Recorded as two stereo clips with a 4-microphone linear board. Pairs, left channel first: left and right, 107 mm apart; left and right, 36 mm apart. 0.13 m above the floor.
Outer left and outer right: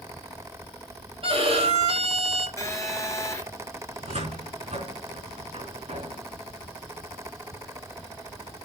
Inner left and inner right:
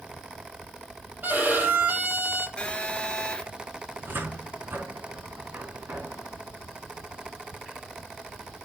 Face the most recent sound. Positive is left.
turn(degrees=-70)  # may be behind; listen again after turning